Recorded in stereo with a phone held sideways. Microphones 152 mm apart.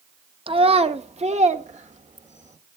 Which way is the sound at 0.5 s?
35° right (ahead or behind).